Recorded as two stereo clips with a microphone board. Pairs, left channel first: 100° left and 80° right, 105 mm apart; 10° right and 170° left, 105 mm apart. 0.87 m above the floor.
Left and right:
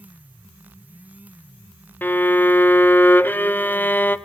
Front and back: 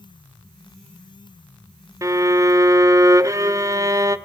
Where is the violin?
155° left, 0.6 m.